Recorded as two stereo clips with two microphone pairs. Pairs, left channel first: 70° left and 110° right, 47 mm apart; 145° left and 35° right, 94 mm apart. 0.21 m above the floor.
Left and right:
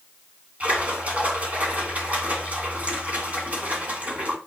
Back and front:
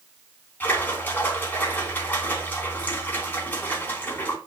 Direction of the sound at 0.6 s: 155° right.